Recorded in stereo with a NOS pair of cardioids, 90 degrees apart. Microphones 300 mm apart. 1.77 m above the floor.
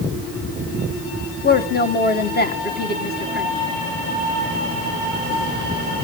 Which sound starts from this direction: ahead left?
A woman speaking, at 1.4 s.